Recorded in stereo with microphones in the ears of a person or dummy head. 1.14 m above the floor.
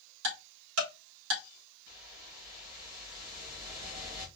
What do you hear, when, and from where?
0.2 s ticking: 70° right (ahead or behind), 2 m
1.9 s a whoosh: 45° right (ahead or behind), 1.9 m